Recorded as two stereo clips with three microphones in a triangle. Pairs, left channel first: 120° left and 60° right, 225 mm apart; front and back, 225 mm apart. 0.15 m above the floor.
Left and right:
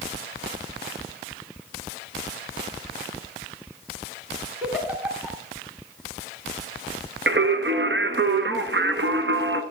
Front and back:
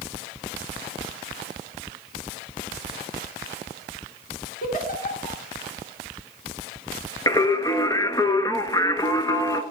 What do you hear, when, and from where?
4.6 s a giggle: 20° left, 1.8 m
7.3 s singing: 75° right, 0.8 m